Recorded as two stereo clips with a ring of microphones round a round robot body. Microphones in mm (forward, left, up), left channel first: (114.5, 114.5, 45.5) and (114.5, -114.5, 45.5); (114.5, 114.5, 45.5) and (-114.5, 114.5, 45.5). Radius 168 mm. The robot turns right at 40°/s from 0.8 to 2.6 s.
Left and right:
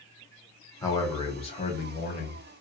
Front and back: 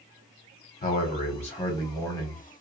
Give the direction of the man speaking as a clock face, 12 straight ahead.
11 o'clock.